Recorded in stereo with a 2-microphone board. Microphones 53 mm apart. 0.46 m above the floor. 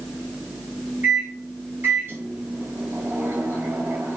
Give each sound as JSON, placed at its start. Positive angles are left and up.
{"t": 1.0, "sound": "a microwave", "side_deg": -45, "distance_m": 2.5}